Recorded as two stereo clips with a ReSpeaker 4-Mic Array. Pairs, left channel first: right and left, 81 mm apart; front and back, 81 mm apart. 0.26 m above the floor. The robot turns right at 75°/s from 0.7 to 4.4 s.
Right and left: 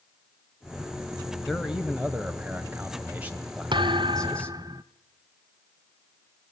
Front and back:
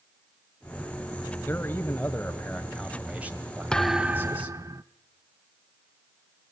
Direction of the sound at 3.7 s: 80° left.